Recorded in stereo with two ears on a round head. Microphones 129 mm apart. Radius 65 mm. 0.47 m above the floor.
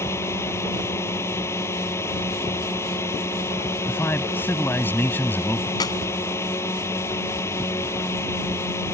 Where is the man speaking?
15° left (ahead or behind).